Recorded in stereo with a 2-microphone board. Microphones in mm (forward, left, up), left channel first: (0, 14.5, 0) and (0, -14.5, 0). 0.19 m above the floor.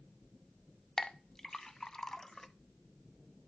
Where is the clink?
20° left (ahead or behind), 0.6 m.